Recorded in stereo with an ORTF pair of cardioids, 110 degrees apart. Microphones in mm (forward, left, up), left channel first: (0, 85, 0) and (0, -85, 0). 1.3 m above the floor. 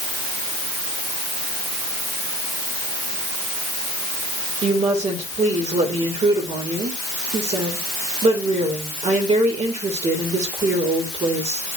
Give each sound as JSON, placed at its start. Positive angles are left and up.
{"t": 4.6, "sound": "a woman speaking", "azimuth_deg": -40, "distance_m": 5.0}